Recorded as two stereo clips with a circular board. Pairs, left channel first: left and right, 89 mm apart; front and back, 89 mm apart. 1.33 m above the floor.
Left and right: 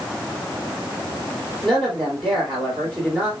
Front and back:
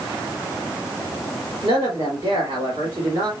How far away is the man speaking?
About 3.5 m.